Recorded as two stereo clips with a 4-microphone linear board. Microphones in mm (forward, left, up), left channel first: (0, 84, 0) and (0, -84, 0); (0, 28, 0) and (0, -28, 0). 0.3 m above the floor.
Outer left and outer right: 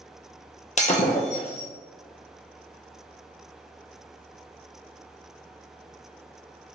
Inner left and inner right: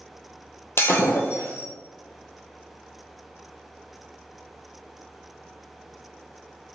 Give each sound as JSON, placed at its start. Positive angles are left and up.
{"t": 0.8, "sound": "breaking glass", "side_deg": 45, "distance_m": 1.1}